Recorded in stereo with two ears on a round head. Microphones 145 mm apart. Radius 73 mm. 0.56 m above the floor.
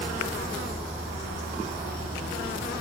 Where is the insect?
30° right (ahead or behind), 0.8 m.